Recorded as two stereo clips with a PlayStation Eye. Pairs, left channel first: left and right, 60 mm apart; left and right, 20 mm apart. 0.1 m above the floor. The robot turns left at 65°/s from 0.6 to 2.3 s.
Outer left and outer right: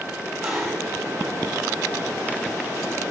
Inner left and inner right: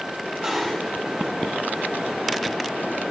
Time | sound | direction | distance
0.2 | dishes clattering | 10° right (ahead or behind) | 9 m